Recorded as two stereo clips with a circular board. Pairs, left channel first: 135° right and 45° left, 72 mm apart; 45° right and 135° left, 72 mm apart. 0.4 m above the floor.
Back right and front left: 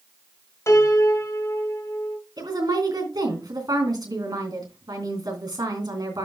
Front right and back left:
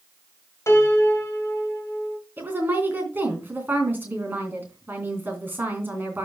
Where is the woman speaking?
70° left, 3 m.